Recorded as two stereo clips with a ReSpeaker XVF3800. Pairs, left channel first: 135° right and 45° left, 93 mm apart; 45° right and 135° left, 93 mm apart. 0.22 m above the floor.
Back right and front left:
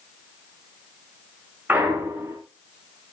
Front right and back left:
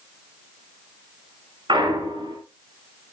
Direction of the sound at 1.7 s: 110° left.